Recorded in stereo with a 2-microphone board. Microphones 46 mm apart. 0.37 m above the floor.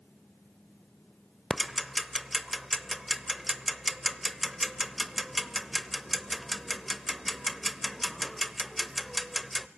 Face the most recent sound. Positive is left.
turn(degrees=0)  # may be behind; listen again after turning